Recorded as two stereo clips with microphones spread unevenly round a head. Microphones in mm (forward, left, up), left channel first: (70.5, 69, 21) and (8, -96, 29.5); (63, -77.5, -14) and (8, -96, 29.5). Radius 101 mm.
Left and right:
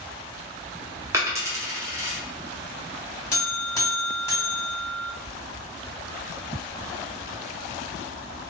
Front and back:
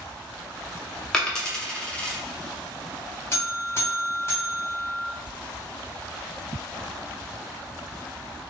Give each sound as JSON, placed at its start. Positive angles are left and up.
{"t": 1.1, "sound": "a dropped coin", "azimuth_deg": -165, "distance_m": 0.6}
{"t": 3.3, "sound": "a buzzer", "azimuth_deg": 0, "distance_m": 1.9}